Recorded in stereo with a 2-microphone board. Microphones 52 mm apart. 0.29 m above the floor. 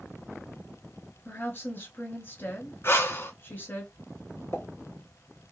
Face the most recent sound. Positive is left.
turn(degrees=50)  # may be behind; listen again after turning